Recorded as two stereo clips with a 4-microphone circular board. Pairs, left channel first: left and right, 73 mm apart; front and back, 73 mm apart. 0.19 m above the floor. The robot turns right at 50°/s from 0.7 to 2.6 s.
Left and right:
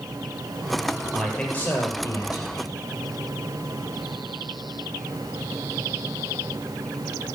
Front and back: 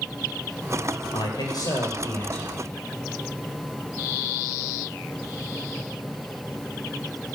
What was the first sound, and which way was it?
A man speaking, 5° right.